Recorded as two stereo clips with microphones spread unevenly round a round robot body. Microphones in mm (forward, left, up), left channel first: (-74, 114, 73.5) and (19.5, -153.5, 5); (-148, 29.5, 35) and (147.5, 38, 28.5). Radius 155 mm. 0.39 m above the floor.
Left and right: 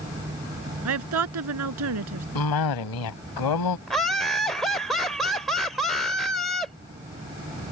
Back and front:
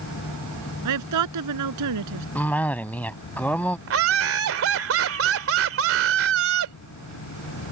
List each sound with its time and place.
0.8 s a woman speaking: 30° right
2.4 s a cough: 95° left
3.9 s laughter: 10° left